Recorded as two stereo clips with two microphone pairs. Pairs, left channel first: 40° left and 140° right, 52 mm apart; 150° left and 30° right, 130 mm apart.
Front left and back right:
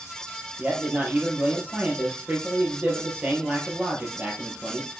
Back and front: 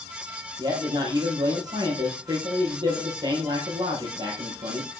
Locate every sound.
0.6 s a man speaking: 85° right, 3.5 m